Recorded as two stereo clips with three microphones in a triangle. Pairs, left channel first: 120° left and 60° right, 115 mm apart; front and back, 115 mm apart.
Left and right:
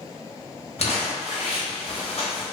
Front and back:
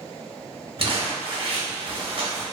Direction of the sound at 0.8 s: 140° left.